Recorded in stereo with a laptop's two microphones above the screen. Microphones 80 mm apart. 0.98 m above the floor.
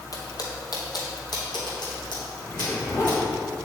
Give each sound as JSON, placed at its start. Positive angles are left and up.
{"t": 0.1, "sound": "footsteps", "side_deg": 55, "distance_m": 1.7}
{"t": 2.4, "sound": "a zipper", "side_deg": 40, "distance_m": 3.0}